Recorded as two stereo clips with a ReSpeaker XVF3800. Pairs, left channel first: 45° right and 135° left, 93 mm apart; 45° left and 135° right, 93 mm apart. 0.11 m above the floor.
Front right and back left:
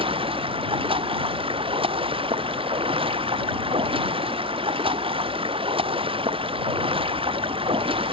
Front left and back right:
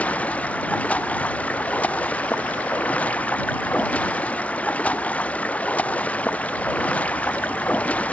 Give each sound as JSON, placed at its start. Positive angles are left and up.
{"t": 0.0, "sound": "running water", "azimuth_deg": 120}